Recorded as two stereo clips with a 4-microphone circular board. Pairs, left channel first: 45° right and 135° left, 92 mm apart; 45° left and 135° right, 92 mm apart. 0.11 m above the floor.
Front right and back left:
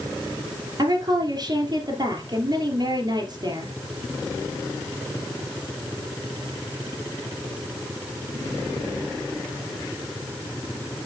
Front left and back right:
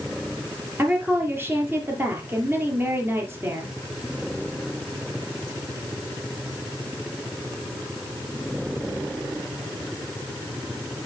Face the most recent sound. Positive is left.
turn(degrees=165)